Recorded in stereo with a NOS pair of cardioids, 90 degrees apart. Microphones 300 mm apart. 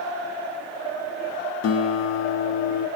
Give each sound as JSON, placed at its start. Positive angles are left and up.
{"t": 1.6, "sound": "a guitar", "azimuth_deg": 55, "distance_m": 0.7}